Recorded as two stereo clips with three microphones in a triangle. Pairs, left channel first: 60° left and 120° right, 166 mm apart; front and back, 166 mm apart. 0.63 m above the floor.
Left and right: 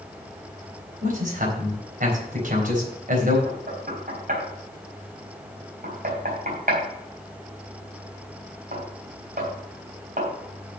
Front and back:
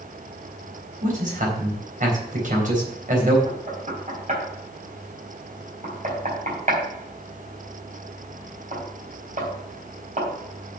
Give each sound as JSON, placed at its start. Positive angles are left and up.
{"t": 1.0, "sound": "a man speaking", "azimuth_deg": -150, "distance_m": 3.5}
{"t": 3.5, "sound": "knocking", "azimuth_deg": -145, "distance_m": 3.5}